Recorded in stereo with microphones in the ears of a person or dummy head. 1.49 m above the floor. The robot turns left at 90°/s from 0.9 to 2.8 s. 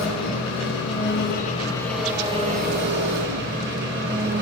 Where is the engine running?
95° left, 4.5 m; by 4.4 s 75° right, 4.5 m.